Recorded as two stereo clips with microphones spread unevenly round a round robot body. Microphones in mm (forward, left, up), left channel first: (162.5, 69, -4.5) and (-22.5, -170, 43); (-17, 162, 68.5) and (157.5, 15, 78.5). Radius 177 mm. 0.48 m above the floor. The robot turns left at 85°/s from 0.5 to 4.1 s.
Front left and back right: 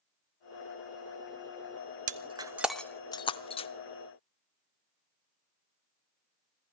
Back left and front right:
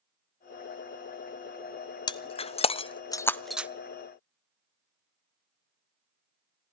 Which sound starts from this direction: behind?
Breaking glass, at 2.1 s.